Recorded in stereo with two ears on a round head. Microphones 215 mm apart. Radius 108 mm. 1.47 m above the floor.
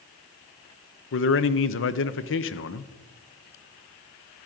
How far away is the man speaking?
About 0.7 m.